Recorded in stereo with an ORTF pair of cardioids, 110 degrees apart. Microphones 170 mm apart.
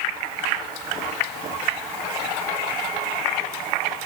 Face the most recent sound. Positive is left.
No sound to turn to.